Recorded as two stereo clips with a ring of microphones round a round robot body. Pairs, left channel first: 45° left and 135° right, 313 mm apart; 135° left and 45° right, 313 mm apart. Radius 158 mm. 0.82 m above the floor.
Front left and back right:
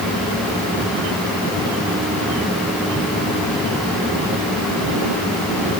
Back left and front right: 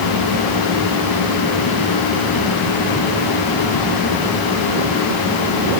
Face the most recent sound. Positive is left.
No sound to turn to.